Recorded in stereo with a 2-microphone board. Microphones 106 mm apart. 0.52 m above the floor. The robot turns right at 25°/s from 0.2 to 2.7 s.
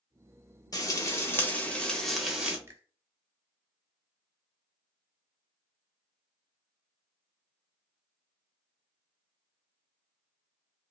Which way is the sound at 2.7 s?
20° right (ahead or behind).